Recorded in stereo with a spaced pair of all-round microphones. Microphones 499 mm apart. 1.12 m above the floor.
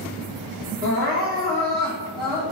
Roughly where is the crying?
Centre.